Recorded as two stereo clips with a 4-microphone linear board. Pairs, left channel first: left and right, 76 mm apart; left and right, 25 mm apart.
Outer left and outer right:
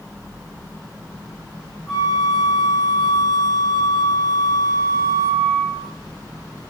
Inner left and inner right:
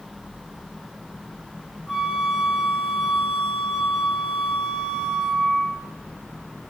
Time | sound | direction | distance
1.9 | a flute | 5° left (ahead or behind) | 1.2 m